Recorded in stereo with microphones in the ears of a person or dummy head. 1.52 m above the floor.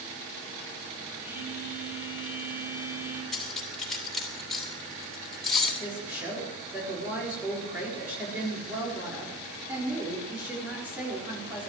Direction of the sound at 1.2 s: 15° right (ahead or behind).